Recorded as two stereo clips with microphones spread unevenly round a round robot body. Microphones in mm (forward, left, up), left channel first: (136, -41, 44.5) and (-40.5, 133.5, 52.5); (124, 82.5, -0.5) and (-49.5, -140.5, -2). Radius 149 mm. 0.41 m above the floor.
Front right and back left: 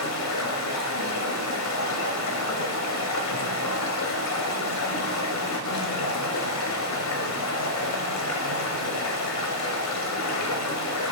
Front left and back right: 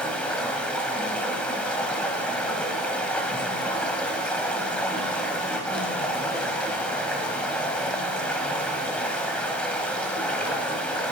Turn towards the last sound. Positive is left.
turn(degrees=-35)